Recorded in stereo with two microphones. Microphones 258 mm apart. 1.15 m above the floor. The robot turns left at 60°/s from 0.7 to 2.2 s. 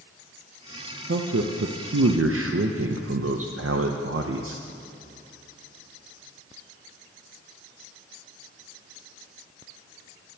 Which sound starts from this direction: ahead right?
A man speaking, at 1.1 s.